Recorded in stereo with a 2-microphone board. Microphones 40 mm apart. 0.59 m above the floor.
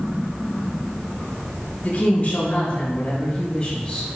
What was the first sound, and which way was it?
A woman speaking, 45° left (ahead or behind).